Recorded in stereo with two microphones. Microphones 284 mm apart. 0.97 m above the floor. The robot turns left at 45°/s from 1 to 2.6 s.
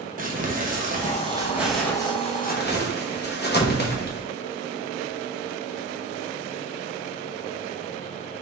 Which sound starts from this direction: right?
Crumpling, at 0.2 s.